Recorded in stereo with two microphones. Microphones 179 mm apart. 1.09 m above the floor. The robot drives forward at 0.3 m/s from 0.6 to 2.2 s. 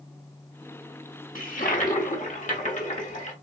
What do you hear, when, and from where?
1.4 s a toilet flushing: 50° left (ahead or behind), 1.2 m; by 3.3 s 45° left (ahead or behind), 1.4 m